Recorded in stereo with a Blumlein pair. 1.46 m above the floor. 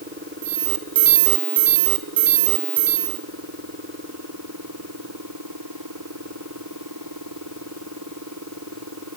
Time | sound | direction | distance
0.4 | an alarm | 55° right | 2 m